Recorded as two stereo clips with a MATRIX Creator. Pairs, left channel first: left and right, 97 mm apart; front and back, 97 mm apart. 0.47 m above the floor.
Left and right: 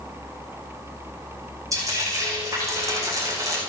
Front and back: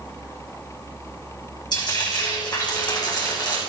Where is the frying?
35° right, 5.5 m.